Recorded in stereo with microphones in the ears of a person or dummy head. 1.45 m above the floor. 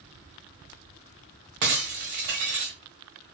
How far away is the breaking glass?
About 1.4 m.